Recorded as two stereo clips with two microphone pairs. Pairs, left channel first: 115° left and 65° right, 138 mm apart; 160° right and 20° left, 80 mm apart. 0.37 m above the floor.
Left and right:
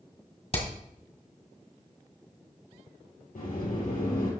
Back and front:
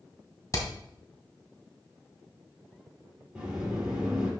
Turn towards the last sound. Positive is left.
turn(degrees=100)